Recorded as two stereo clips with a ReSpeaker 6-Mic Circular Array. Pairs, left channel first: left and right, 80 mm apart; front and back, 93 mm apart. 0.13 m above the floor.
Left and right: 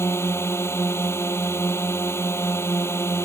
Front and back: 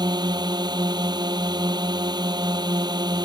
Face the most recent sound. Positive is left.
turn(degrees=145)